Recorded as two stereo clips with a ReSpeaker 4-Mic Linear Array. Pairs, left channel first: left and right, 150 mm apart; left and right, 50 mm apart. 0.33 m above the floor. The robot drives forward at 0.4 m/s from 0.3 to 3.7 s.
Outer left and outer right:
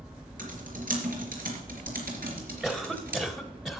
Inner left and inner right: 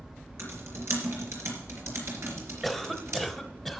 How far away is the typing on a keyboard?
About 4 m.